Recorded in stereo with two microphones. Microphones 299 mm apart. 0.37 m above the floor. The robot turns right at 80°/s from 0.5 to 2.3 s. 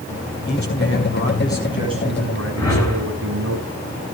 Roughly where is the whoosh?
Centre.